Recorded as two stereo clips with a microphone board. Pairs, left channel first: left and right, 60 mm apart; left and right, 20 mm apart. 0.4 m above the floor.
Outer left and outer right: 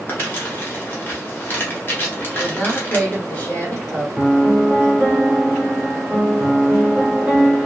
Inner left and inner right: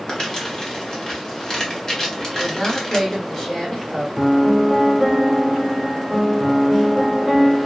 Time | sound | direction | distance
0.1 | crumpling | 35° left (ahead or behind) | 0.9 m
2.4 | a woman speaking | 30° left (ahead or behind) | 1.3 m
4.2 | a piano | 20° right (ahead or behind) | 1.1 m